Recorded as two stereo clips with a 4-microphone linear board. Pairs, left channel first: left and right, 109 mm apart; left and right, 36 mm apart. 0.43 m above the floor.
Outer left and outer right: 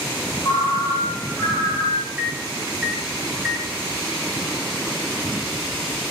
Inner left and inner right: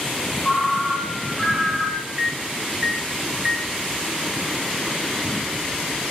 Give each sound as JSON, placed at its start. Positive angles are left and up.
{"t": 0.4, "sound": "a ringtone", "side_deg": 40, "distance_m": 1.6}
{"t": 2.2, "sound": "a microwave", "side_deg": 0, "distance_m": 1.0}